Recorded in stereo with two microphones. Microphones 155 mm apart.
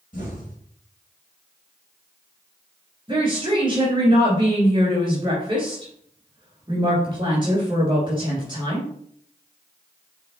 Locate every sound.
0.1 s an explosion: 60° left (ahead or behind), 3 m
3.1 s a woman speaking: 30° right (ahead or behind), 1.8 m